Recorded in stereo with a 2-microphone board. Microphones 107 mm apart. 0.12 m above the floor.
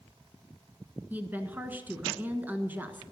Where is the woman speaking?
15° right (ahead or behind), 1.4 m.